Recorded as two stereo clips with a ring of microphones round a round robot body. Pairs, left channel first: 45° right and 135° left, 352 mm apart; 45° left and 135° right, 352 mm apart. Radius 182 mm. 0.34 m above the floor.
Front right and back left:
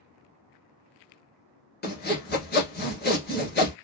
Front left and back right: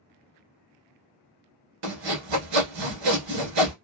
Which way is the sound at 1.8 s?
110° right.